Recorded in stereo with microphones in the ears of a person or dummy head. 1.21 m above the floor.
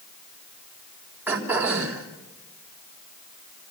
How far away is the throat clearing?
About 3.5 m.